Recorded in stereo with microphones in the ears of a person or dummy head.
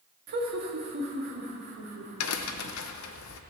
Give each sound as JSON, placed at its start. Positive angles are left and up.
{"t": 0.3, "sound": "laughter", "side_deg": -45, "distance_m": 2.0}
{"t": 2.2, "sound": "a crack", "side_deg": 75, "distance_m": 0.9}